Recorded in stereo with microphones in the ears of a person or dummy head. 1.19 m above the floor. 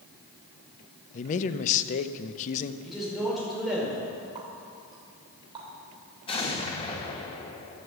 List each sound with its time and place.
1.1 s a man speaking: 40° left (ahead or behind), 0.7 m
2.8 s a man speaking: centre (ahead or behind), 5 m
4.3 s a running tap: 20° right (ahead or behind), 3.5 m
6.3 s an explosion: 25° left (ahead or behind), 1.3 m